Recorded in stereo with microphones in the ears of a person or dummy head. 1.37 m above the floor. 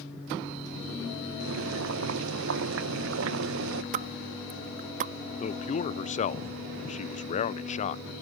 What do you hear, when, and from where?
1.4 s boiling: 85° right
3.9 s a pop: 40° right (ahead or behind)
5.4 s a man speaking: 35° left (ahead or behind)